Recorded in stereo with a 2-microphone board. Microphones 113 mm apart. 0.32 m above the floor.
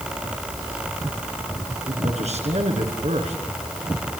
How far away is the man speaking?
About 4.5 m.